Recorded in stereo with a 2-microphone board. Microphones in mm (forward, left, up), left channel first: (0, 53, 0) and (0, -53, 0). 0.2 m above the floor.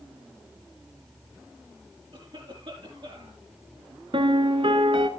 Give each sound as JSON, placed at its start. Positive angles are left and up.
{"t": 2.1, "sound": "a cough", "side_deg": -55, "distance_m": 5.5}
{"t": 4.1, "sound": "a piano", "side_deg": -55, "distance_m": 0.9}